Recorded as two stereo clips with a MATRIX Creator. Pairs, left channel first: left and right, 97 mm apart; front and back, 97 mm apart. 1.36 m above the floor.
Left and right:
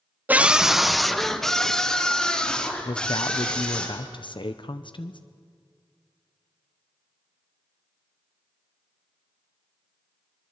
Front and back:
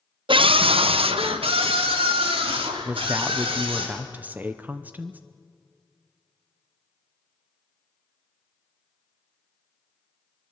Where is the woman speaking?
110° left, 0.8 m.